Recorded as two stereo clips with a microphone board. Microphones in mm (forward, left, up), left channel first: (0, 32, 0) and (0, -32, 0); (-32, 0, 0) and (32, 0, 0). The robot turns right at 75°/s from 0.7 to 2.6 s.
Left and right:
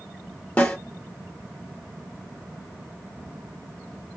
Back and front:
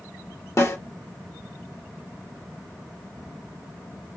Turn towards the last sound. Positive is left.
turn(degrees=-65)